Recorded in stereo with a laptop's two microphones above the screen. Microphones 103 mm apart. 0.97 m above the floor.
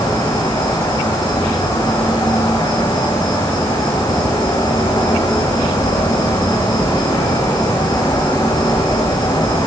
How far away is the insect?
About 5.5 m.